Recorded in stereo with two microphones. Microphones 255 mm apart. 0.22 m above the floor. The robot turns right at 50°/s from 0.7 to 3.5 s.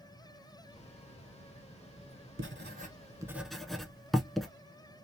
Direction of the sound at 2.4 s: 50° right (ahead or behind).